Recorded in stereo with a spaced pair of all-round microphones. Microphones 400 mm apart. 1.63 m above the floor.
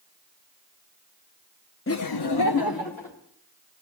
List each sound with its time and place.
1.9 s laughter: 30° left (ahead or behind), 0.6 m; by 3.2 s 50° left (ahead or behind), 1.7 m